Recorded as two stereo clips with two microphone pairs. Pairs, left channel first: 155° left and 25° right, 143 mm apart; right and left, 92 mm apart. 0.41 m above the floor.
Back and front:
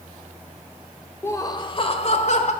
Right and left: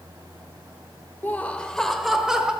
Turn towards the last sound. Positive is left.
turn(degrees=170)